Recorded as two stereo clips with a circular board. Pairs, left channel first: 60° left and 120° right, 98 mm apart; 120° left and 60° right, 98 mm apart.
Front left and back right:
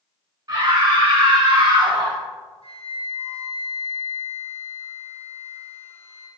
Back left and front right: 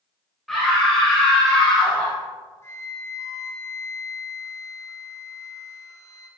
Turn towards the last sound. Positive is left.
turn(degrees=60)